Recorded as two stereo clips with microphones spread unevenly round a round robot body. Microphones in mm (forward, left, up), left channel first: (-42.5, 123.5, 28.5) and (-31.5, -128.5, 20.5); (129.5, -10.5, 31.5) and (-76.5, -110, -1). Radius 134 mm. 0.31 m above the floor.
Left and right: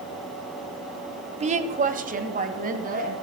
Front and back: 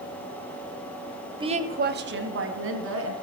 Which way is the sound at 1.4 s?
120° right.